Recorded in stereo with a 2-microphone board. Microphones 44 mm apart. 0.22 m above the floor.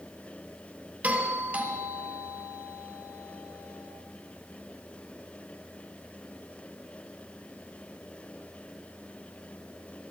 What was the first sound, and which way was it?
A doorbell, 45° right (ahead or behind).